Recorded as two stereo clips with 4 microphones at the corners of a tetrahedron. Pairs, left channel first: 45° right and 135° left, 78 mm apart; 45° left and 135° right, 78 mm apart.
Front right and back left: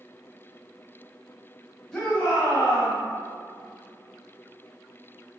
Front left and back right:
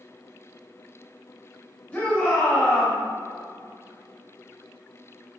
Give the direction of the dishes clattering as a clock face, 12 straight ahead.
No dishes clattering in this recording.